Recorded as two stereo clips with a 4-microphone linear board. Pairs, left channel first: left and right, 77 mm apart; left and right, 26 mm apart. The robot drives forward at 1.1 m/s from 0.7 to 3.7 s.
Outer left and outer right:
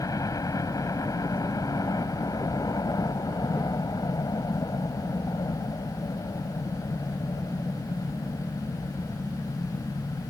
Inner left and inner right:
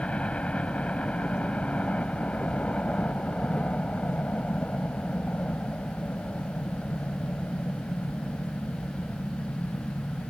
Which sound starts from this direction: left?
A helicopter, at 0.0 s.